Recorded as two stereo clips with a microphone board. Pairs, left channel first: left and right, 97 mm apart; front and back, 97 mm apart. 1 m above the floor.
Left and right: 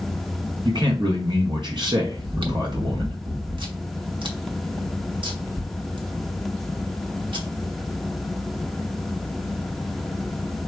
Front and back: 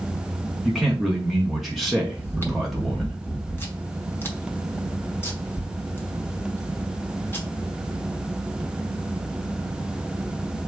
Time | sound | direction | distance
0.7 | a man speaking | 90° right | 1.0 m
2.2 | chewing | 65° right | 1.0 m